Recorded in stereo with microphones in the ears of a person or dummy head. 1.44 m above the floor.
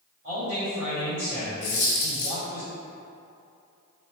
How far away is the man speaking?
About 1.6 m.